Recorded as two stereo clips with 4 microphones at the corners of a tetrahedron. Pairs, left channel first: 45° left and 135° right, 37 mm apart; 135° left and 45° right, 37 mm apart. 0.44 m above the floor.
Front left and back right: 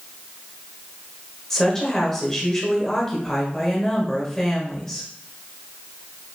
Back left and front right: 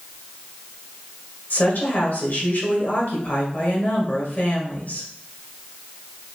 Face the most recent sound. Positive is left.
turn(degrees=125)